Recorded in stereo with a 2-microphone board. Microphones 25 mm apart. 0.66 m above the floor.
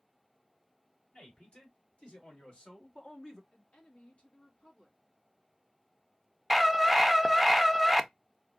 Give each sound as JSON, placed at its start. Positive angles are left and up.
{"t": 1.1, "sound": "a man speaking", "side_deg": 60, "distance_m": 3.0}
{"t": 3.5, "sound": "a woman speaking", "side_deg": 60, "distance_m": 1.6}
{"t": 6.5, "sound": "a scream", "side_deg": 0, "distance_m": 0.6}